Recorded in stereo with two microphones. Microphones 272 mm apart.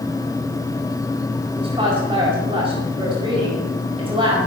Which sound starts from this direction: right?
A woman speaking, at 1.6 s.